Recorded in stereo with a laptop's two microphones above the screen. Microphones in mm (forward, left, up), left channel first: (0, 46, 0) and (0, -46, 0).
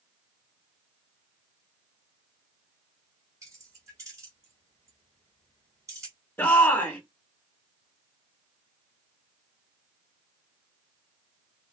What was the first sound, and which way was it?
Keys jangling, 35° right (ahead or behind).